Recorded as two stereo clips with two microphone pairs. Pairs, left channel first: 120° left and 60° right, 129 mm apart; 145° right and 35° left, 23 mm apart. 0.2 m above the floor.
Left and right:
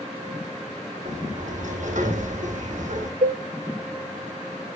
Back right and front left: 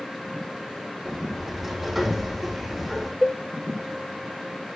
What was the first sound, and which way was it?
A sliding door, 45° right.